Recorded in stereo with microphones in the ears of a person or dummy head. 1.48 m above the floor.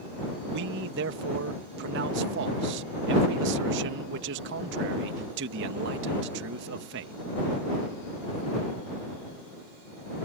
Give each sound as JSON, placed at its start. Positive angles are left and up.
{"t": 0.5, "sound": "a man speaking", "side_deg": -70}